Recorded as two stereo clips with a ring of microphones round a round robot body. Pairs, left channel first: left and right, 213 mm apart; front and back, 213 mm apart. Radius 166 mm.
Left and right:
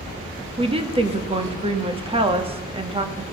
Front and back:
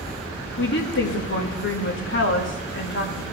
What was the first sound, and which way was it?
A woman speaking, 25° right.